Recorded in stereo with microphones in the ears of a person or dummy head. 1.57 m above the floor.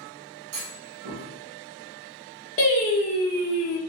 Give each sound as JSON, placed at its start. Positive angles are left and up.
{"t": 0.5, "sound": "a clunk", "side_deg": -75, "distance_m": 1.1}
{"t": 2.6, "sound": "singing", "side_deg": 35, "distance_m": 1.2}